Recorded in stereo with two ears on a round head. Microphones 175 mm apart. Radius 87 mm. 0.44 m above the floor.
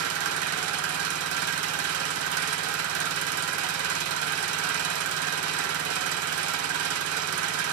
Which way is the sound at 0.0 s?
85° right.